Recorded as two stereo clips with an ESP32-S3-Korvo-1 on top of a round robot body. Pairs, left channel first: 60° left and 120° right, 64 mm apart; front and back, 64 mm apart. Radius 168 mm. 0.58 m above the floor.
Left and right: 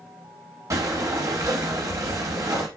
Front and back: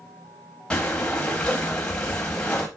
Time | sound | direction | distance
0.7 | breathing | 75° right | 0.6 m